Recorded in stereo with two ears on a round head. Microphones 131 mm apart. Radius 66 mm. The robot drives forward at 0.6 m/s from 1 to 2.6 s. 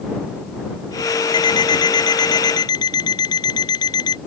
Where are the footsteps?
I don't hear footsteps.